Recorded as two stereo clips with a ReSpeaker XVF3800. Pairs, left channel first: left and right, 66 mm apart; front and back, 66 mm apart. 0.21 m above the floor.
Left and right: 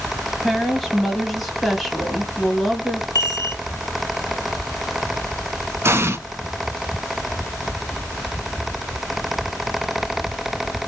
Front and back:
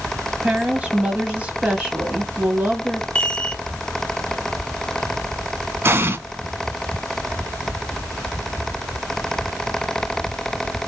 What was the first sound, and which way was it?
A woman speaking, straight behind.